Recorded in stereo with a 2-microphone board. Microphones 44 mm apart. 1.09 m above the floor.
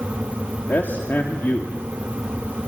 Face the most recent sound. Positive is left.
turn(degrees=50)  # may be behind; listen again after turning